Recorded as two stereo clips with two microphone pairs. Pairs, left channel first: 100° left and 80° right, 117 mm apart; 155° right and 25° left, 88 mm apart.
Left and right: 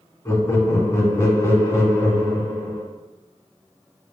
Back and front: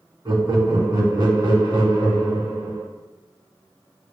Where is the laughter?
40° left, 2.5 m.